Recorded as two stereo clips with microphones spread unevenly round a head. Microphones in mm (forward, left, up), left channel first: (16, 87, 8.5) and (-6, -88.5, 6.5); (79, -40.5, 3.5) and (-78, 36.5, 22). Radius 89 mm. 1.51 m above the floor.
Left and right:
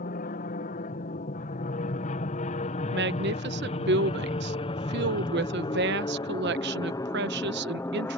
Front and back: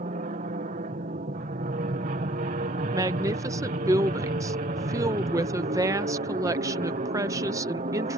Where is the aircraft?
115° left; by 8.2 s 155° left.